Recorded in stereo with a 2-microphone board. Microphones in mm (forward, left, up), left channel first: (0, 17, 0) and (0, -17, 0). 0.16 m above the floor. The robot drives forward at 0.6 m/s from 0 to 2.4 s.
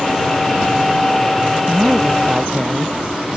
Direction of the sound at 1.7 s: 20° right (ahead or behind).